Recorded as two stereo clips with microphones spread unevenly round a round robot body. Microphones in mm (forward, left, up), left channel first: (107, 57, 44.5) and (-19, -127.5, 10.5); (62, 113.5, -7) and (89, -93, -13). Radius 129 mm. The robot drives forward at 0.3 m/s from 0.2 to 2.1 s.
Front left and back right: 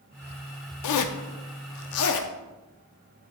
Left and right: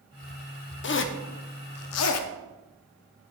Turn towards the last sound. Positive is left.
turn(degrees=95)